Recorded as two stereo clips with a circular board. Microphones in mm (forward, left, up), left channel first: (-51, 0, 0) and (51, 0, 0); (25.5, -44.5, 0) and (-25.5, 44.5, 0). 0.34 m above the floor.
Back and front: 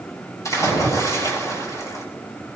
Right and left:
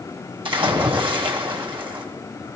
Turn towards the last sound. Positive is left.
turn(degrees=130)